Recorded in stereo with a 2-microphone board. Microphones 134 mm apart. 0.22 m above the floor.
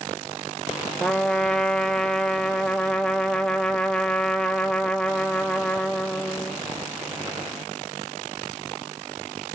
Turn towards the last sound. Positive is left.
turn(degrees=5)  # may be behind; listen again after turning